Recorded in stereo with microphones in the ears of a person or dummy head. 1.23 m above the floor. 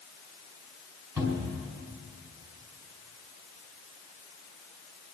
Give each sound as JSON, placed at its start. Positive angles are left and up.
{"t": 1.2, "sound": "a cupboard door", "side_deg": -20, "distance_m": 4.0}